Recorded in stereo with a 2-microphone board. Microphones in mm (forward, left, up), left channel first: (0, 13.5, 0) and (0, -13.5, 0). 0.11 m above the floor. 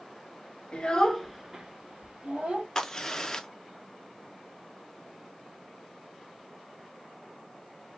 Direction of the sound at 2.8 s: 20° left (ahead or behind).